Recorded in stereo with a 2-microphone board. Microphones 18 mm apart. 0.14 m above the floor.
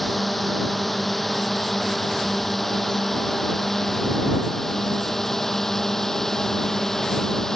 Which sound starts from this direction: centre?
A drone, at 0.0 s.